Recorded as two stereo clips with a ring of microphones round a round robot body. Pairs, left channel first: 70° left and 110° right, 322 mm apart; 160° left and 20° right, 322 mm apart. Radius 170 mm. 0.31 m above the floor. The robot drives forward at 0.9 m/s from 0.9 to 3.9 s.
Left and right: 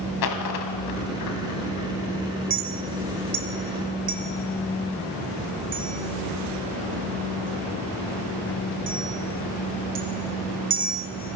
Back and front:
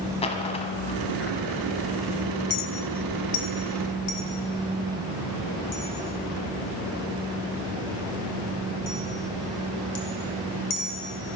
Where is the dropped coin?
85° left, 1.4 m; by 1.9 s 120° left, 1.6 m.